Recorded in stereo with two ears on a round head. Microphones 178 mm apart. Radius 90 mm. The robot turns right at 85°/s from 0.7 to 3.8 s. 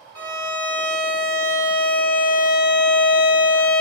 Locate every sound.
0.1 s a violin: 20° right (ahead or behind), 1.1 m; by 3.8 s 5° left (ahead or behind), 1.1 m